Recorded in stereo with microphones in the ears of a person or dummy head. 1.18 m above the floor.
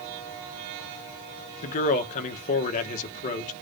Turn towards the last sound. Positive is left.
turn(degrees=45)  # may be behind; listen again after turning